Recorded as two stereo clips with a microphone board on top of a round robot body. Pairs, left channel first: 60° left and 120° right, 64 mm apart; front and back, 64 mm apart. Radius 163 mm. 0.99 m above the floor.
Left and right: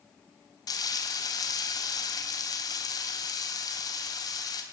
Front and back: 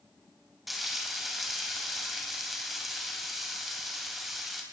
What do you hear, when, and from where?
0.7 s frying: 90° left, 3 m